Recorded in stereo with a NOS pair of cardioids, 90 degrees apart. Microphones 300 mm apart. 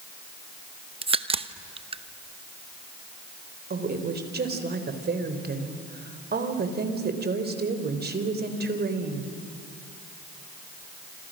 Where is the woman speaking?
35° right, 3.5 m.